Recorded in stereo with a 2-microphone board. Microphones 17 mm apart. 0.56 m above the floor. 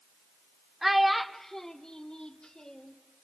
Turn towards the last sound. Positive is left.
turn(degrees=65)  # may be behind; listen again after turning